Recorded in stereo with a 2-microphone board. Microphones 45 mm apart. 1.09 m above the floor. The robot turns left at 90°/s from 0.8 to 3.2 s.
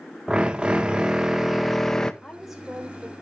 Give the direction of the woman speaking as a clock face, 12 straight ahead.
11 o'clock.